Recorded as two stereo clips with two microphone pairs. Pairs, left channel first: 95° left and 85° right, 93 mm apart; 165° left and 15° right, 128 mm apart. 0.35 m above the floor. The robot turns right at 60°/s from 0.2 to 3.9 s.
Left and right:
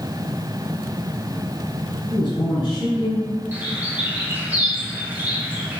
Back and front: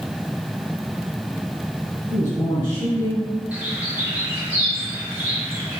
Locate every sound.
2.1 s a man speaking: 85° left, 1.6 m; by 3.3 s 155° left, 1.6 m
3.5 s a bird: 75° right, 1.0 m; by 5.8 s 50° right, 1.0 m